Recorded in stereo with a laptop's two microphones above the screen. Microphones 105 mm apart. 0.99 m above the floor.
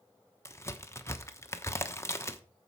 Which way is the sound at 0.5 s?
25° left (ahead or behind).